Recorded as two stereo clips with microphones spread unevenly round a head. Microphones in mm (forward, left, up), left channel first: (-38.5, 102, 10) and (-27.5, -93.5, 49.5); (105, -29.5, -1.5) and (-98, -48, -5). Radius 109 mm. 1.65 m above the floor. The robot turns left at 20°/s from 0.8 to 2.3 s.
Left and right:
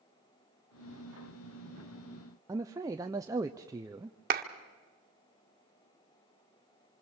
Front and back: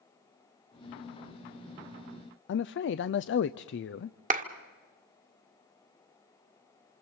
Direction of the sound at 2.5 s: 20° right.